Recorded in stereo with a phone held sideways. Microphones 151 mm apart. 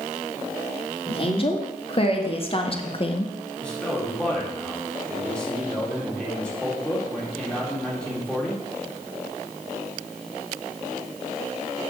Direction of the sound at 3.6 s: 5° left (ahead or behind).